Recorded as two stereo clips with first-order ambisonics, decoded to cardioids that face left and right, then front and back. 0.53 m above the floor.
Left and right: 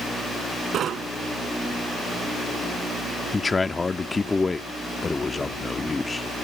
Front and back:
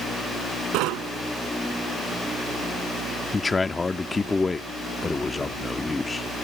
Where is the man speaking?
40° left.